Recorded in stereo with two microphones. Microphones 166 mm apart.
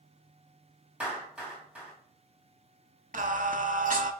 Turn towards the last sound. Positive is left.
turn(degrees=-50)  # may be behind; listen again after turning